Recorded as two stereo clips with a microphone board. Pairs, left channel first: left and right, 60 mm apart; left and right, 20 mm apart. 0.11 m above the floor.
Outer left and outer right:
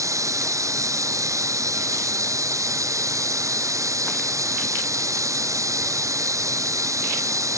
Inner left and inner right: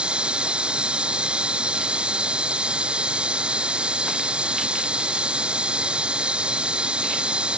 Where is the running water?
65° right (ahead or behind).